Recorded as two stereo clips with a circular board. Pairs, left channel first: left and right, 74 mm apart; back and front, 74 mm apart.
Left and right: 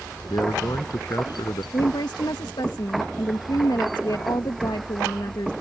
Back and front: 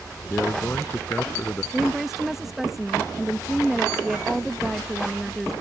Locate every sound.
0.3 s a man speaking: 115° left
1.7 s a woman speaking: 85° left